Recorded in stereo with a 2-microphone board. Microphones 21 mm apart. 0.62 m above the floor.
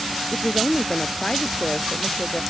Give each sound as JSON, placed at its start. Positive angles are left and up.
{"t": 0.3, "sound": "a woman speaking", "side_deg": 45}